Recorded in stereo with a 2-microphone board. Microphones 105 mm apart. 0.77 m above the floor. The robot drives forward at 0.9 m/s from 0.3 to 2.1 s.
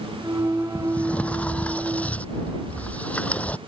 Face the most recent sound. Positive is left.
turn(degrees=15)  # may be behind; listen again after turning